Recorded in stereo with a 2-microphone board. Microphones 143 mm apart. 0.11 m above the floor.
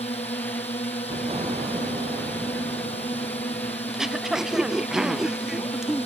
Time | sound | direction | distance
0.0 | a drone | 45° left (ahead or behind) | ?
1.1 | an explosion | 45° right (ahead or behind) | ?
3.9 | throat clearing | 5° right (ahead or behind) | ?